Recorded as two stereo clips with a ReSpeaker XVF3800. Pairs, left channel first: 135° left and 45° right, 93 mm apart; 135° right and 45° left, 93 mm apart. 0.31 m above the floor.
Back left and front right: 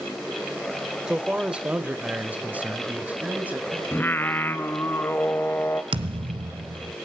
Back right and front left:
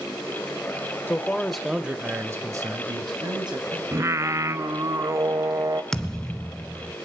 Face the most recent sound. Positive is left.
turn(degrees=-50)